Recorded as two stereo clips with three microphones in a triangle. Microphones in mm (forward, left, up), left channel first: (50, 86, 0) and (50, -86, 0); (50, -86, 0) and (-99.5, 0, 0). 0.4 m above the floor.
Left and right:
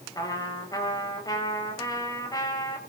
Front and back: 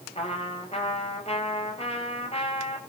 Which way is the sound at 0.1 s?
20° left.